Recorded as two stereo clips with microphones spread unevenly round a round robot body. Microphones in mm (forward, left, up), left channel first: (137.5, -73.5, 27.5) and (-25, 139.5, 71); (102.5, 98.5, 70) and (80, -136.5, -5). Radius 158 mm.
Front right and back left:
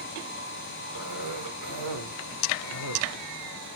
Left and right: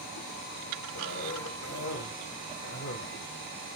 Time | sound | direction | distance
0.9 | a cough | 130° left | 2 m